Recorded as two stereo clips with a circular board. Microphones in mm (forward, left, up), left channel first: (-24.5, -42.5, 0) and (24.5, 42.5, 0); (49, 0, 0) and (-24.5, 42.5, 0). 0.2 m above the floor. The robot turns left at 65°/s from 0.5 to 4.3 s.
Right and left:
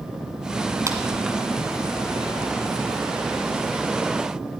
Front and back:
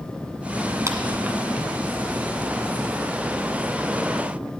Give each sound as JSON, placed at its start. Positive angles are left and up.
{"t": 0.9, "sound": "a clap", "azimuth_deg": 110, "distance_m": 1.7}